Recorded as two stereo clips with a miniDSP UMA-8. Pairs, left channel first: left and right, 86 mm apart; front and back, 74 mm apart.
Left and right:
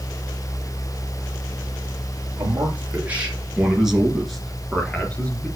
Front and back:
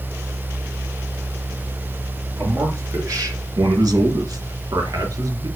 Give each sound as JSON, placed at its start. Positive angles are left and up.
{"t": 2.4, "sound": "a man speaking", "azimuth_deg": -150, "distance_m": 2.5}